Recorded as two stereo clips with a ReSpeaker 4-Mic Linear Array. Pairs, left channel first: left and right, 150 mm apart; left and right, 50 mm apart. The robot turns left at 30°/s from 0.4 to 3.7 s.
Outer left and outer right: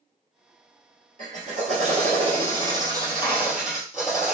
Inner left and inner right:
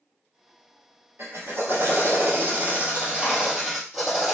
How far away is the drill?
About 1.9 m.